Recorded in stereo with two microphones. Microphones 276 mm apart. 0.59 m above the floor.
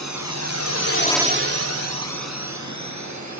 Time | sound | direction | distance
0.0 | a drone | 80° left | ?